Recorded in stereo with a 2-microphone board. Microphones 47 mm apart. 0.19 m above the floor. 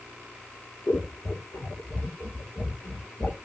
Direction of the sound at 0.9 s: 50° left (ahead or behind).